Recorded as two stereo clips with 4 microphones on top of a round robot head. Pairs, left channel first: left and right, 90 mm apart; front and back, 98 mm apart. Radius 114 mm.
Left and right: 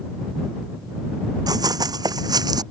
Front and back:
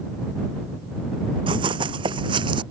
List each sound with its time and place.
1.5 s running footsteps: 135° right; by 2.6 s 130° right